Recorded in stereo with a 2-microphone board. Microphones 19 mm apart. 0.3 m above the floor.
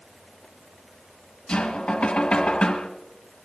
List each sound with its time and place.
1.5 s knocking: 70° left (ahead or behind), 1.7 m